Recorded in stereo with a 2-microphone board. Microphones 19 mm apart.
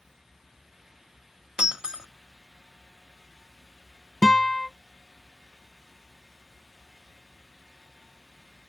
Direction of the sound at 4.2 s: 35° left (ahead or behind).